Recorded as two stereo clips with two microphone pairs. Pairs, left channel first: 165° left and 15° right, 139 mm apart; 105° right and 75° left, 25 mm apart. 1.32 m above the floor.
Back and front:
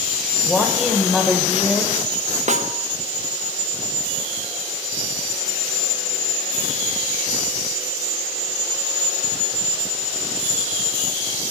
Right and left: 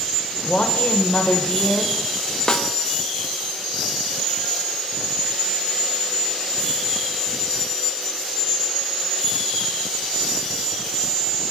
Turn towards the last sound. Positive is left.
turn(degrees=-45)